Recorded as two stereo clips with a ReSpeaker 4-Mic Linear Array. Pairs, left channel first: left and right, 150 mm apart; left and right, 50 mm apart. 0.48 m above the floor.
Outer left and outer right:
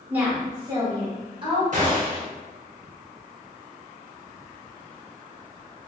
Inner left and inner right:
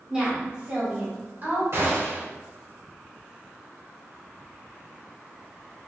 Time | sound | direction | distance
0.1 | a woman speaking | 10° right (ahead or behind) | 1.1 m
1.7 | a gunshot | 60° right (ahead or behind) | 1.2 m